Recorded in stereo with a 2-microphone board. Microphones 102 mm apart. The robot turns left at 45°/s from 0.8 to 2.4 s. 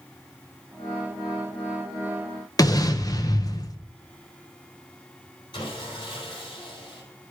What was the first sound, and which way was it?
An explosion, 35° left (ahead or behind).